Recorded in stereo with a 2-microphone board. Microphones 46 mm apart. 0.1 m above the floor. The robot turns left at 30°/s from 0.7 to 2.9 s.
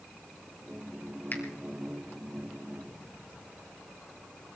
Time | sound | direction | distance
1.3 | a finger snap | 45° left (ahead or behind) | 2 m